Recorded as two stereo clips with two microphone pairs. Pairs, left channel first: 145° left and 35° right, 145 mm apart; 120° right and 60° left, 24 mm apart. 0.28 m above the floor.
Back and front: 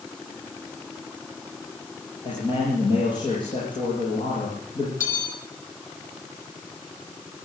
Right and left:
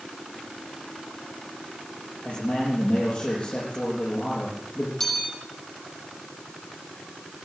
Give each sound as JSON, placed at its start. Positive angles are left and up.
{"t": 2.2, "sound": "a man speaking", "azimuth_deg": -155, "distance_m": 10.0}
{"t": 5.0, "sound": "a bell", "azimuth_deg": 175, "distance_m": 7.0}